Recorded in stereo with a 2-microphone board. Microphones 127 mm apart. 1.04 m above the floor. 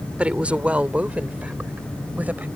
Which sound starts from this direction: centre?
A woman speaking, at 0.2 s.